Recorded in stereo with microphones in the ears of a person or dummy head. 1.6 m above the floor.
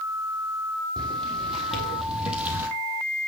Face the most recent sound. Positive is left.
turn(degrees=-10)  # may be behind; listen again after turning